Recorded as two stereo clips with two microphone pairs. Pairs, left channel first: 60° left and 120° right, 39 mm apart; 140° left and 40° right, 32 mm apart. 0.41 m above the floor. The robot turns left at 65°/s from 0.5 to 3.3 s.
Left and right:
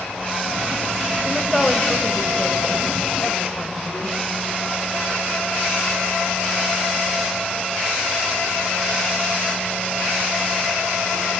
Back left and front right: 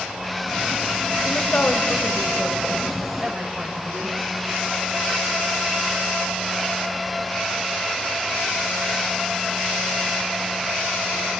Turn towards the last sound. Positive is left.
turn(degrees=35)